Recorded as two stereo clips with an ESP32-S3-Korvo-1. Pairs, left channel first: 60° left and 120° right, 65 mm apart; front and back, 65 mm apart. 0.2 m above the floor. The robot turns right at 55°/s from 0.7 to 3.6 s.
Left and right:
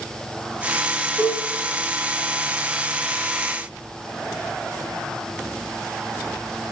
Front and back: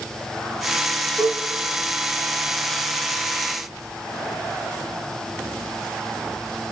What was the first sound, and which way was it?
A cowbell, 65° right.